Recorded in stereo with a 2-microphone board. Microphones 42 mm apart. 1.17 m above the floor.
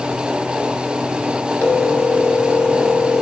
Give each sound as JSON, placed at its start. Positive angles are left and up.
{"t": 1.6, "sound": "a phone ringing", "side_deg": 85, "distance_m": 2.5}